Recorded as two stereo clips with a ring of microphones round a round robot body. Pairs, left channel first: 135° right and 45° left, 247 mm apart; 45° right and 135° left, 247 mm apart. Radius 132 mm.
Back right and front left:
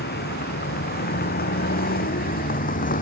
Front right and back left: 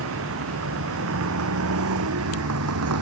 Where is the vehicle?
170° left; by 3.0 s 165° left.